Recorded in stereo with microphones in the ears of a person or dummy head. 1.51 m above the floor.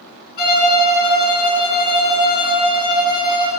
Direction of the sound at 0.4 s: 45° left (ahead or behind).